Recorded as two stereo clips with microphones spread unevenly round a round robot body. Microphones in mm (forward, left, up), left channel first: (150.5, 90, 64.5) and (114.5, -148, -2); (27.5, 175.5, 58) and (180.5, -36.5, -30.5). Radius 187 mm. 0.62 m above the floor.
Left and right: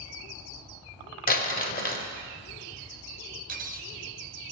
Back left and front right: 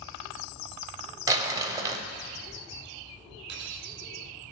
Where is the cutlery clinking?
60° right, 0.6 m.